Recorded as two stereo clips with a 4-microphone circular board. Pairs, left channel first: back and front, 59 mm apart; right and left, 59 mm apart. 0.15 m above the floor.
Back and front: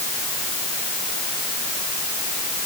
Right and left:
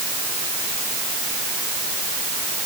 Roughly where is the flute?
No flute in this recording.